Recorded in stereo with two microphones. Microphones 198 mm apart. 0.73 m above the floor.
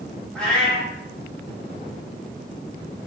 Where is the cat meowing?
5° left (ahead or behind), 1.1 m.